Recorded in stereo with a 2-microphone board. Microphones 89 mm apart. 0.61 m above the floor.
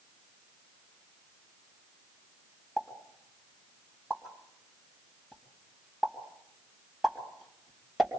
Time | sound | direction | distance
2.8 | a pop | centre (ahead or behind) | 2.5 m